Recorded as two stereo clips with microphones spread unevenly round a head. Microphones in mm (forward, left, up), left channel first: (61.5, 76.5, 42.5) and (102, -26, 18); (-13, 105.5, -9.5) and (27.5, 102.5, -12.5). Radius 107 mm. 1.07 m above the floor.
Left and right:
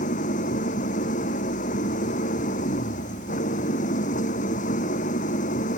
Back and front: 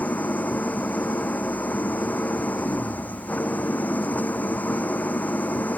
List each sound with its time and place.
0.0 s an engine running: 130° left